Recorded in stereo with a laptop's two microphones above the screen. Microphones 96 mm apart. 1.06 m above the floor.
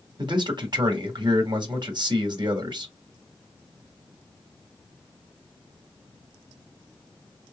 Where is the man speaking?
50° right (ahead or behind), 1.6 m.